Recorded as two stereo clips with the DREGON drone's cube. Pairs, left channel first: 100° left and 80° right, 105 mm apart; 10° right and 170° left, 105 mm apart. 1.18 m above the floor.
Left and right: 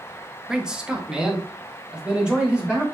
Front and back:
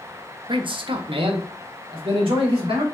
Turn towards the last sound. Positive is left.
turn(degrees=-160)